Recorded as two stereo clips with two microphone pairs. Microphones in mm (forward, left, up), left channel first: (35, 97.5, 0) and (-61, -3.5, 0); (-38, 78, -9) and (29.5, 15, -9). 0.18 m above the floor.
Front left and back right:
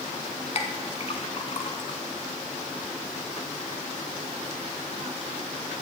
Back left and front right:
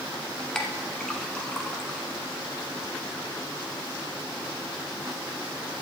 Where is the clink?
60° left, 0.9 m.